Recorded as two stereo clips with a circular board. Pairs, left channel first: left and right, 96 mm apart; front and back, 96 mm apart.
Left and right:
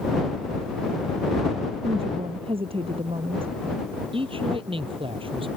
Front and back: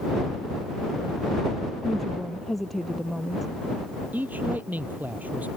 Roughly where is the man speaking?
Right.